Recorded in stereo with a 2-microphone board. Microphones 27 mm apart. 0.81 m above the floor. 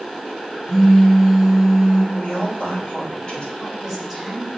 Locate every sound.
0.7 s a phone buzzing: 15° right (ahead or behind), 4 m
2.1 s a woman speaking: 40° left (ahead or behind), 3 m
3.5 s a woman speaking: 5° left (ahead or behind), 4 m